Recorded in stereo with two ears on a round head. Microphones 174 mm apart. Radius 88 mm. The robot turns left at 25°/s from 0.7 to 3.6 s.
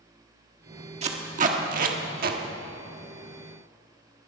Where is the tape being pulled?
35° right (ahead or behind), 1.4 m; by 2.4 s 50° right (ahead or behind), 1.4 m.